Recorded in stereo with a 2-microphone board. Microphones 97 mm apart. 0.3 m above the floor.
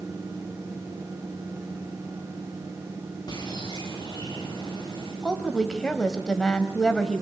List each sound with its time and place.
3.3 s a bird: 50° left (ahead or behind), 9.5 m
5.2 s a woman speaking: 5° left (ahead or behind), 1.5 m